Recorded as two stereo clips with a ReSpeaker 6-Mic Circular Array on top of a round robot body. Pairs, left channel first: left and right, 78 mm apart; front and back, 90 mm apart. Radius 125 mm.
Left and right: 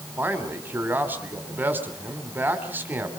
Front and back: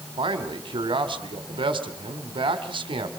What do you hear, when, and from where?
0.2 s a man speaking: 155° right, 3.5 m